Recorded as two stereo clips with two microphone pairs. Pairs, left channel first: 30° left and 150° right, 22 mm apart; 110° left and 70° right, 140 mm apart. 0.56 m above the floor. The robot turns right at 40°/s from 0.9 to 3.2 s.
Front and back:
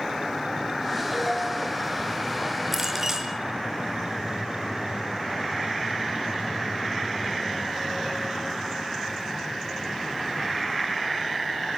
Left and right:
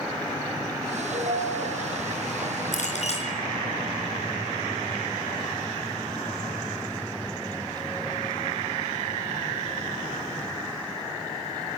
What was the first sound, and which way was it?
A ringtone, 60° right.